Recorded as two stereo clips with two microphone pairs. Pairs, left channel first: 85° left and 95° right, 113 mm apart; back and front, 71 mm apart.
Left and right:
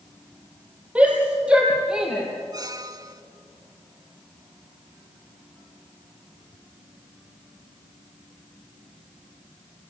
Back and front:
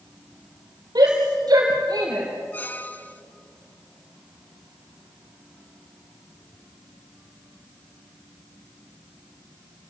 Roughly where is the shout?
Ahead.